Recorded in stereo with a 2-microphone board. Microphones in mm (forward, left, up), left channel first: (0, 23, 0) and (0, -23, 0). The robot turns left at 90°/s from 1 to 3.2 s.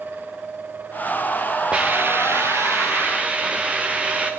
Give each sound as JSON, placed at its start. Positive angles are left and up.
{"t": 1.7, "sound": "a hiss", "azimuth_deg": -20, "distance_m": 3.5}